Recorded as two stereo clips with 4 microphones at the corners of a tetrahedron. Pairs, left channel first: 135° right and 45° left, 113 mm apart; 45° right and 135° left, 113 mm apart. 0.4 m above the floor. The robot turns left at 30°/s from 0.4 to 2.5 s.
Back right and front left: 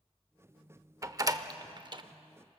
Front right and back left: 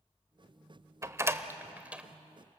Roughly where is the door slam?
Left.